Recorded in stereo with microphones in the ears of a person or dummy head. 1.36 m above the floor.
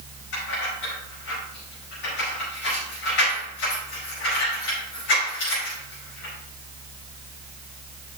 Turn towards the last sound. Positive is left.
turn(degrees=70)  # may be behind; listen again after turning